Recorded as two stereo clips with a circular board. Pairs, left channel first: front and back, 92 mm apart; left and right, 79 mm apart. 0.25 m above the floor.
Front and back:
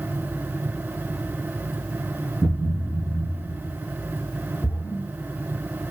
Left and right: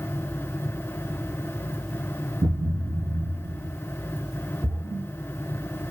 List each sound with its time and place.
2.4 s a thud: 100° right, 1.6 m
4.6 s a splash: 75° right, 4.5 m